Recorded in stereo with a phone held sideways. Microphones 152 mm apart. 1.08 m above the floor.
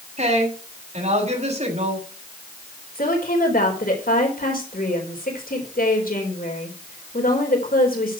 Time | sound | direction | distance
0.2 | a woman speaking | 50° right (ahead or behind) | 7 m
3.0 | a woman speaking | 70° left (ahead or behind) | 4 m